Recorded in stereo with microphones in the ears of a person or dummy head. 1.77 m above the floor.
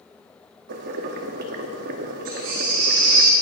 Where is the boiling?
55° right (ahead or behind), 0.8 m.